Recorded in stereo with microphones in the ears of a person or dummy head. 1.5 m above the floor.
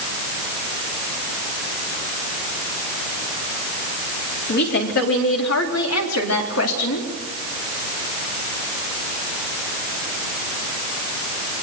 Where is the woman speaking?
55° left (ahead or behind), 3.5 m; by 7.1 s 80° left, 3.5 m.